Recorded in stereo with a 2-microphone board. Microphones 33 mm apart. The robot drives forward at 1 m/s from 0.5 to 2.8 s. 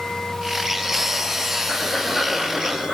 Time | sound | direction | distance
1.7 | breathing | 30° right (ahead or behind) | 9.5 m